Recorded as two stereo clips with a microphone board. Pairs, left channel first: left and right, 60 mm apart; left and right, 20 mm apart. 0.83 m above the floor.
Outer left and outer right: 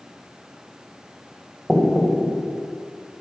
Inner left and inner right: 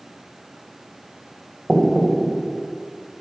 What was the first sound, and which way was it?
Knocking, 5° left (ahead or behind).